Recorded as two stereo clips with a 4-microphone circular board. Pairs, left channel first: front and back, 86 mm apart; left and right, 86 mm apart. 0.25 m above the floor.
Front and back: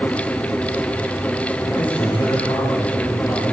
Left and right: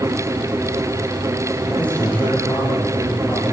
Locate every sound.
1.7 s a man speaking: 15° left, 8 m